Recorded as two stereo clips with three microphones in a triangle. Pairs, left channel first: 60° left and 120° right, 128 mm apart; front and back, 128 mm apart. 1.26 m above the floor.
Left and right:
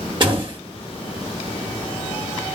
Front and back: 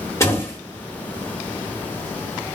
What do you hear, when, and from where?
0.2 s a door slam: 70° right, 1.7 m